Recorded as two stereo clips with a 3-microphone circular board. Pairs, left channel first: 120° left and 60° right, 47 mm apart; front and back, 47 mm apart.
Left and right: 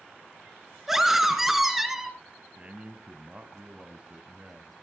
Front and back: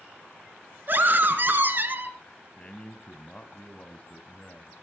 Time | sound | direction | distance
0.9 | a scream | 140° right | 2.5 m
2.6 | a man speaking | 30° right | 1.1 m